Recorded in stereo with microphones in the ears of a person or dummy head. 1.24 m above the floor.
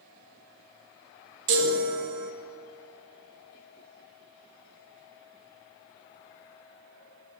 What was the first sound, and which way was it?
A chime, 40° right (ahead or behind).